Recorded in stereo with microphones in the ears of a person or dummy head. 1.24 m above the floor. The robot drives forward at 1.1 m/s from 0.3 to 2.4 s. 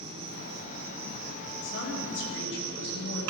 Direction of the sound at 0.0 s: 25° right (ahead or behind).